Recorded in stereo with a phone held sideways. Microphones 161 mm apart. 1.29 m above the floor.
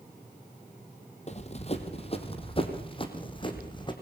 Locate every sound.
1.3 s running footsteps: 45° left (ahead or behind), 2.5 m; by 3.9 s 30° left (ahead or behind), 4 m